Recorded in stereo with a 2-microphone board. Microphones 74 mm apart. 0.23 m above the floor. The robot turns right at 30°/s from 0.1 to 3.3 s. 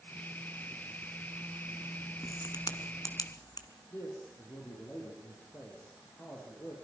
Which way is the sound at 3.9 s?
35° left (ahead or behind).